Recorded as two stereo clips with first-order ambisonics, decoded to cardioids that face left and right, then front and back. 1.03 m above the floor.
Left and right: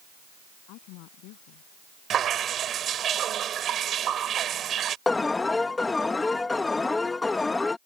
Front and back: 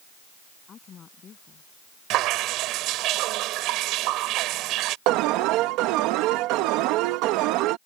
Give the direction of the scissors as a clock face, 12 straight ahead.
I don't hear scissors.